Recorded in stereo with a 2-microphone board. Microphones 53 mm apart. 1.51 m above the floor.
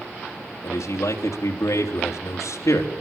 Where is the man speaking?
90° left, 3.5 m.